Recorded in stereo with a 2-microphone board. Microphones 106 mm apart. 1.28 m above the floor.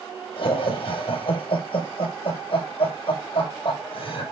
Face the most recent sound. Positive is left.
turn(degrees=60)  # may be behind; listen again after turning